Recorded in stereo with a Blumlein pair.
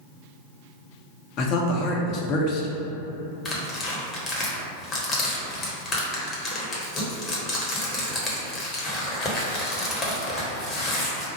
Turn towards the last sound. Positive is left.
turn(degrees=20)